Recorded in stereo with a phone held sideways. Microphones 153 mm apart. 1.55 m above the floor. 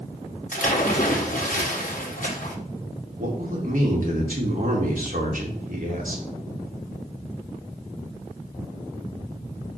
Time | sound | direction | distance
0.5 | a splash | 60° left (ahead or behind) | 1.3 m
3.2 | a man speaking | 60° right (ahead or behind) | 2 m